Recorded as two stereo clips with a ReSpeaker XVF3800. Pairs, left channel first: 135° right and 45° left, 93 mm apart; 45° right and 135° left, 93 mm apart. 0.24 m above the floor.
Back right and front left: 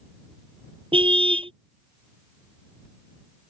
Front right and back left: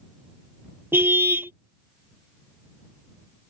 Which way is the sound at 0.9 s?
70° left.